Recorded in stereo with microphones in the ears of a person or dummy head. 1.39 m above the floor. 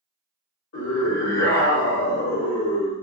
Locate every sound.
0.7 s a scream: 85° left, 1.3 m